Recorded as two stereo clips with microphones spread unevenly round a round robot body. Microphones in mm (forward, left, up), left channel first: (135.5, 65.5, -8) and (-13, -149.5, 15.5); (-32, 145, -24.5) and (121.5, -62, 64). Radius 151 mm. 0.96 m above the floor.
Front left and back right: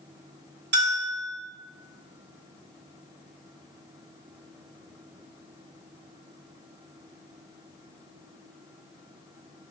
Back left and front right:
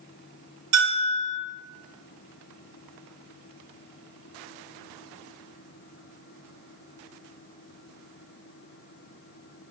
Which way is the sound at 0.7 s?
80° right.